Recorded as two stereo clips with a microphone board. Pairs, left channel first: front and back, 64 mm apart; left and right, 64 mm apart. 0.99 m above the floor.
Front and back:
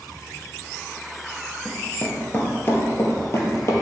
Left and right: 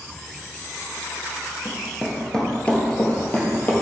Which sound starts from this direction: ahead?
Running footsteps, at 1.6 s.